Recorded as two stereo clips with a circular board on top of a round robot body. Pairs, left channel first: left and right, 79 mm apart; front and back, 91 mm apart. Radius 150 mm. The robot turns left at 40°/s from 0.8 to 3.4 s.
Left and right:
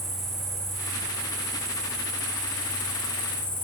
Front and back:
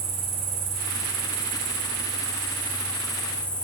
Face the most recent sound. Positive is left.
turn(degrees=75)